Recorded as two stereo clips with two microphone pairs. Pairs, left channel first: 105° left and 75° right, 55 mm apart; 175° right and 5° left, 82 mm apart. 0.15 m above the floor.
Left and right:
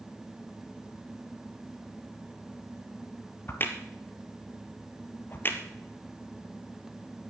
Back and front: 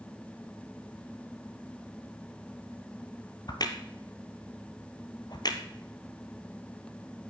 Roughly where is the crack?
Behind left.